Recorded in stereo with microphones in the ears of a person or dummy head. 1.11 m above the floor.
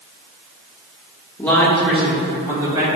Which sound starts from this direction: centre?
A woman speaking, at 1.4 s.